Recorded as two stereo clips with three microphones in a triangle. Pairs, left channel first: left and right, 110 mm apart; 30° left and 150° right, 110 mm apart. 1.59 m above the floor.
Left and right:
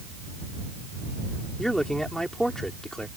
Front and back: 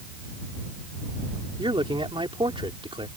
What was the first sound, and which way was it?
A man speaking, 175° left.